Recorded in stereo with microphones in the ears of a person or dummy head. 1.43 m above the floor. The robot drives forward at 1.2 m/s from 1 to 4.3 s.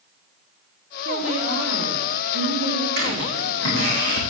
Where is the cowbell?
I don't hear a cowbell.